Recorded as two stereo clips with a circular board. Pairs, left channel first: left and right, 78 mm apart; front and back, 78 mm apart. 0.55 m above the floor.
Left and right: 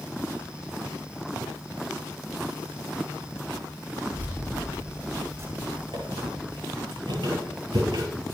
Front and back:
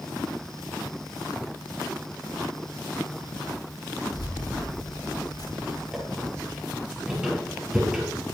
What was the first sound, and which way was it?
Keys jangling, 25° right.